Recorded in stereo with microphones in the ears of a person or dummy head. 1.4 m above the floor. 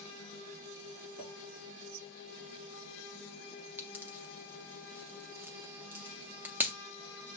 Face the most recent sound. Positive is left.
turn(degrees=-10)  # may be behind; listen again after turning